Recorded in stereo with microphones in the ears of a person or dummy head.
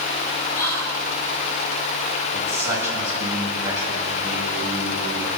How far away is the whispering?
About 1.7 m.